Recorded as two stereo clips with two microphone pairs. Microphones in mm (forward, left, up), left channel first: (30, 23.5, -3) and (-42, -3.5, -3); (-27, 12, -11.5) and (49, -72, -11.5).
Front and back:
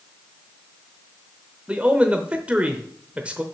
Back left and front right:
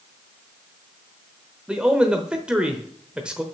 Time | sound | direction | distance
1.7 | a man speaking | 110° right | 0.8 m